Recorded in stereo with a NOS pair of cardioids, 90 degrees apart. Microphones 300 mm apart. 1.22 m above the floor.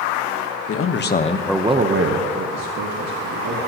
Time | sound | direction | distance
0.7 | a man speaking | 50° left | 1.5 m